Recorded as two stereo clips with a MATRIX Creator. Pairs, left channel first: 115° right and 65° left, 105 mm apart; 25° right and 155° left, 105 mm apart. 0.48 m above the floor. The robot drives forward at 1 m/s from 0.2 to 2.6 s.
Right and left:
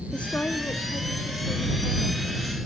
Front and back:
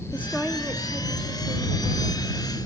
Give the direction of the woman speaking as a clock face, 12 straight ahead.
2 o'clock.